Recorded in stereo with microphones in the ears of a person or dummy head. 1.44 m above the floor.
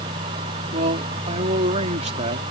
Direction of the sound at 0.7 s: 40° right (ahead or behind).